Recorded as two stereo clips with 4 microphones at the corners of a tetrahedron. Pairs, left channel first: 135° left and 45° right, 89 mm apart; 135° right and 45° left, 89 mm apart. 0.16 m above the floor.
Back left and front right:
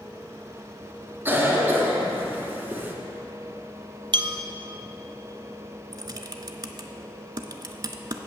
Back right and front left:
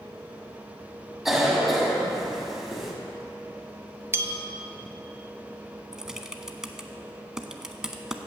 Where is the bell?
15° right, 0.6 m.